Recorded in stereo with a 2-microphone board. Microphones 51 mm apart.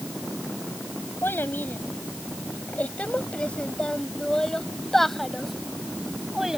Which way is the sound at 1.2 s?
40° left (ahead or behind).